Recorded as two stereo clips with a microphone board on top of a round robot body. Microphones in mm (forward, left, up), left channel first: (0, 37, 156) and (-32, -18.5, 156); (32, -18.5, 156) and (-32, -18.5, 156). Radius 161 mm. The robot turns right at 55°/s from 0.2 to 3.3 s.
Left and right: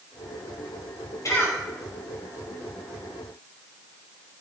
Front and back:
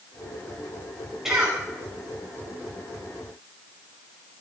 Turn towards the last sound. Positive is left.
turn(degrees=-150)